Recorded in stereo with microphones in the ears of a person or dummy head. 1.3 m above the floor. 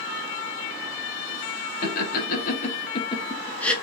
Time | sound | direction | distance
1.8 | laughter | 55° left (ahead or behind) | 1.4 m